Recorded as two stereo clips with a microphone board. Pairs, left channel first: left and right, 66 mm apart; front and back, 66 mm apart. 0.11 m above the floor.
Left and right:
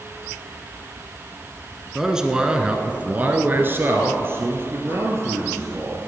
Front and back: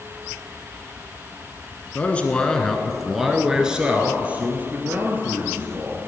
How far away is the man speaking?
About 1.1 m.